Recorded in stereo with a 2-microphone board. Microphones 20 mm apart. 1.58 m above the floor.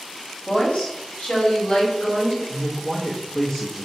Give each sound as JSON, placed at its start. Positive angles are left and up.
{"t": 0.5, "sound": "a woman speaking", "side_deg": 70, "distance_m": 1.4}
{"t": 2.5, "sound": "a man speaking", "side_deg": 20, "distance_m": 0.9}